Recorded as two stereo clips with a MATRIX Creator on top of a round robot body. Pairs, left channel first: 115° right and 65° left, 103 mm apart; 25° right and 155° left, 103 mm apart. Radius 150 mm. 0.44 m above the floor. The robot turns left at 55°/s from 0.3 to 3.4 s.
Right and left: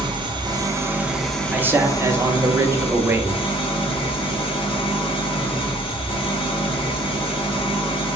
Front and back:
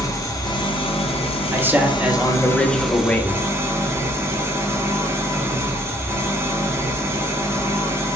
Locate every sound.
0.0 s an engine running: 30° left, 0.9 m; by 8.2 s 140° right, 0.9 m
1.5 s a man speaking: 120° left, 0.7 m; by 3.4 s 15° left, 0.7 m